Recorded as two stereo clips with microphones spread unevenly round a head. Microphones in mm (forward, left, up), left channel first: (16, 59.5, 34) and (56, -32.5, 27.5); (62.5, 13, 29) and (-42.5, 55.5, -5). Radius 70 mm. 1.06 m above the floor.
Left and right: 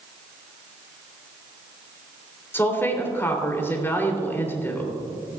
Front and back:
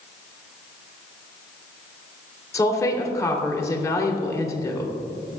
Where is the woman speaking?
45° left, 3 m.